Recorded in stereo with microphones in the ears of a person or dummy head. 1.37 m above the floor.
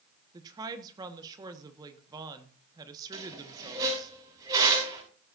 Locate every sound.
0.3 s a woman speaking: 20° right (ahead or behind), 1.4 m
3.1 s a squeak: 20° right (ahead or behind), 7 m